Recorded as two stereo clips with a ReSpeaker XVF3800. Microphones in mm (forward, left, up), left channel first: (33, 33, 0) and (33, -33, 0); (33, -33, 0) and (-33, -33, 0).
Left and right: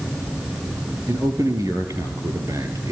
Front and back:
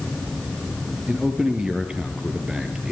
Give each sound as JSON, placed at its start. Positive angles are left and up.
{"t": 1.1, "sound": "a man speaking", "azimuth_deg": -105, "distance_m": 3.5}